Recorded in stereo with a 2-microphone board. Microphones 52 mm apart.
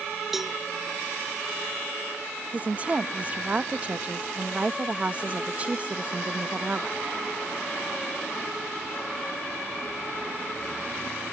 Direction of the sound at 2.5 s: 30° right (ahead or behind).